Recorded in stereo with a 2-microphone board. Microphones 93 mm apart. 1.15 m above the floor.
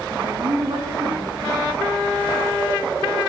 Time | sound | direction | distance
0.1 | a woman speaking | 60° right (ahead or behind) | 7.5 m